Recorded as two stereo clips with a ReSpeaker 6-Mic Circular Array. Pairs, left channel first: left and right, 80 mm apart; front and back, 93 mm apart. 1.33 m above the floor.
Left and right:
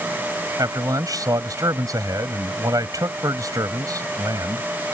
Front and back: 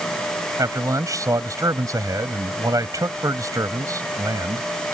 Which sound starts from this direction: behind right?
A man speaking, at 0.6 s.